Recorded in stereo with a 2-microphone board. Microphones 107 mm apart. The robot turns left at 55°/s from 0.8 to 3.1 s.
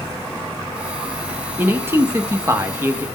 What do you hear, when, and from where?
1.6 s a man speaking: 20° right (ahead or behind), 0.7 m